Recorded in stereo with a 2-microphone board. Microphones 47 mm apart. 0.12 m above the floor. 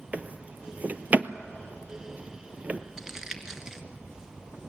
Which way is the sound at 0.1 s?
35° right (ahead or behind).